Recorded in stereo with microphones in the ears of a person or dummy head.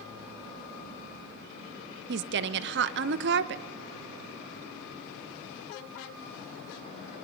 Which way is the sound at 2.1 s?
55° right (ahead or behind).